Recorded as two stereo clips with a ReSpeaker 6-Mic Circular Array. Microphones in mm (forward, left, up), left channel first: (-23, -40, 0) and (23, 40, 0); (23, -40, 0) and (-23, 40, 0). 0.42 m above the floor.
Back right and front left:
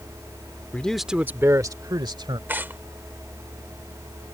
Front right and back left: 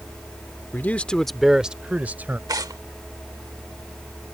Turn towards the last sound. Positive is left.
turn(degrees=120)